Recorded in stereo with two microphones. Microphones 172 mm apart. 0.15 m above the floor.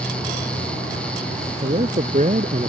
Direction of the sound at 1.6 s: 45° right (ahead or behind).